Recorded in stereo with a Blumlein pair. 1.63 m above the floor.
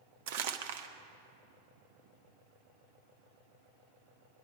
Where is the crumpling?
50° right, 1.0 m.